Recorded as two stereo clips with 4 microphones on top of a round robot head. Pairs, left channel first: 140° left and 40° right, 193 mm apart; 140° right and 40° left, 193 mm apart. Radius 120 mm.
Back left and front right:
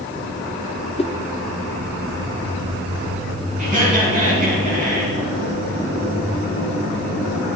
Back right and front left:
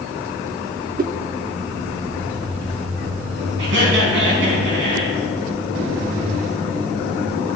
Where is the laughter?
10° left, 4.5 m.